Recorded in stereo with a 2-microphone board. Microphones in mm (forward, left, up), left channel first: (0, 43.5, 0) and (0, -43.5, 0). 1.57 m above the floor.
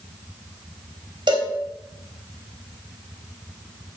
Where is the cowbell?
65° right (ahead or behind), 3.5 m.